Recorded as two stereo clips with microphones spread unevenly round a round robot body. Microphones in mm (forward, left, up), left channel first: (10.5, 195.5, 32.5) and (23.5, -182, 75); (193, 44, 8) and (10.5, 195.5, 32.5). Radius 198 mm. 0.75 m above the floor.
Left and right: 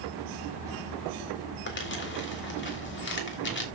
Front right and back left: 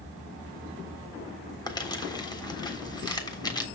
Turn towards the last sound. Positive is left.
turn(degrees=30)